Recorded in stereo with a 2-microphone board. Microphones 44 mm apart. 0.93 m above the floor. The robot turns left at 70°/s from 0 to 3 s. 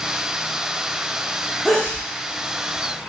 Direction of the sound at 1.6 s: 5° left (ahead or behind).